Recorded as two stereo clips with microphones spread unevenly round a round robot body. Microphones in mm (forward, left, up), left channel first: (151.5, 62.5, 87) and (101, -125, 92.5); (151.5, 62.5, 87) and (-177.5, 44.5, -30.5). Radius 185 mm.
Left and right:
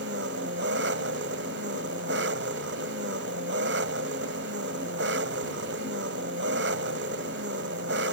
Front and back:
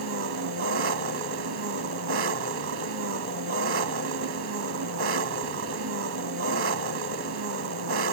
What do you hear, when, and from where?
0.0 s an engine running: 135° right